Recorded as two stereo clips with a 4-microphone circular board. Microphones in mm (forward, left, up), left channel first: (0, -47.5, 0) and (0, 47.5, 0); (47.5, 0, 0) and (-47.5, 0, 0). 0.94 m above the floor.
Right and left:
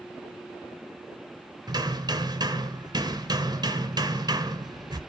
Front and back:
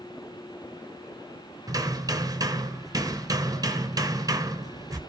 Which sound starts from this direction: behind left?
Hammering, at 1.7 s.